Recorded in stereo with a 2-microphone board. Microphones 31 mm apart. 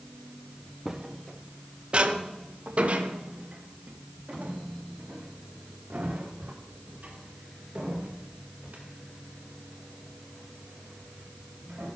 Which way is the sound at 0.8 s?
15° right (ahead or behind).